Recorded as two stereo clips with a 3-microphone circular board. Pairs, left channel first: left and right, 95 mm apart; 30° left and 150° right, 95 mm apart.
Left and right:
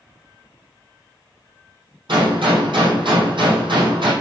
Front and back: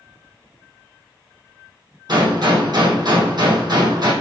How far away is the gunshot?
About 6 m.